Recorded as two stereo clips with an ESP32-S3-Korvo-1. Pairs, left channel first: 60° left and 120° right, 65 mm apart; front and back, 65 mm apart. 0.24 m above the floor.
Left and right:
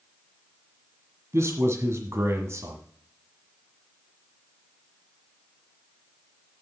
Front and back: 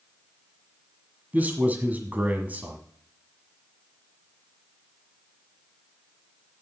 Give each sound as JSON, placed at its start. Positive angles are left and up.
{"t": 1.3, "sound": "a man speaking", "azimuth_deg": -125, "distance_m": 1.5}